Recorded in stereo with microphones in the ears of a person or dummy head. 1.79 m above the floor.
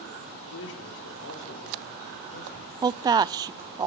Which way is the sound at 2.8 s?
20° right (ahead or behind).